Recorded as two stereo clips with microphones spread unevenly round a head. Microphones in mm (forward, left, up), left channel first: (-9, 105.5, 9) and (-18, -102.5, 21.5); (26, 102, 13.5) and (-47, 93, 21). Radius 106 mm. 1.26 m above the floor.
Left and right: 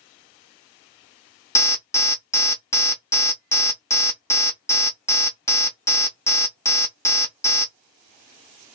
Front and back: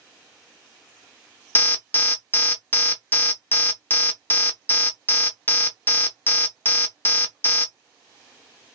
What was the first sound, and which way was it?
An alarm, 25° left.